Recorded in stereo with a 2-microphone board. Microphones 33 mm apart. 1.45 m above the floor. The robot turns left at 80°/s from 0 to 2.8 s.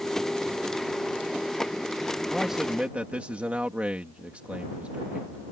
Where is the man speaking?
5° right; by 5.5 s 45° right.